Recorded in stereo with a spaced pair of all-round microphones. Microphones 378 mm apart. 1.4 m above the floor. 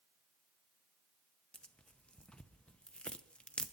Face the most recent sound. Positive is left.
turn(degrees=5)  # may be behind; listen again after turning